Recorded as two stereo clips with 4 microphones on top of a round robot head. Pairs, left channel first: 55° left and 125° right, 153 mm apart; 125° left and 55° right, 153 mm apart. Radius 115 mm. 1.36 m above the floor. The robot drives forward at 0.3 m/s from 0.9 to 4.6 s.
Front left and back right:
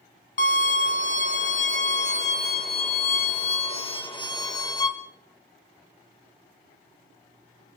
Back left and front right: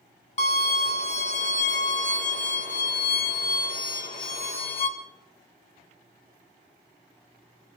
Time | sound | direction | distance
0.4 | a violin | 80° left | 1.9 m